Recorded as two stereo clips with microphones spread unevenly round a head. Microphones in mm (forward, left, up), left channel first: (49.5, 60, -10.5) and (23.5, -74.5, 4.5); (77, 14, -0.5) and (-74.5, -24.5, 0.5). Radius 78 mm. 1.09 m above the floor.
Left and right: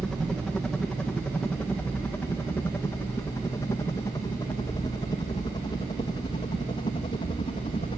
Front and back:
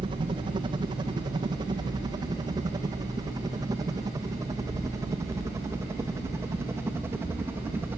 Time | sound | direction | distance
0.0 | a helicopter | 160° left | ?